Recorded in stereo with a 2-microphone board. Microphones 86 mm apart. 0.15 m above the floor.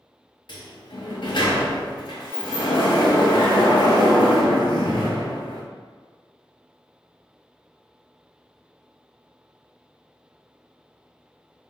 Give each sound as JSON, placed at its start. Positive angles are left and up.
{"t": 0.5, "sound": "a sliding door", "side_deg": 75, "distance_m": 0.6}